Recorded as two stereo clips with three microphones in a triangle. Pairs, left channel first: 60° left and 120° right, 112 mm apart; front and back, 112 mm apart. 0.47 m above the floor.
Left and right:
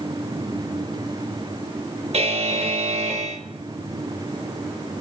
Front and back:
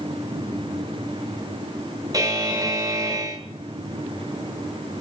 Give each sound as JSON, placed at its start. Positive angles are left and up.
{"t": 2.1, "sound": "a buzzer", "azimuth_deg": -125, "distance_m": 1.1}